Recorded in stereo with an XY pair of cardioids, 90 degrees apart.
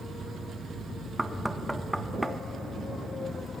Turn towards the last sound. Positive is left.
turn(degrees=-5)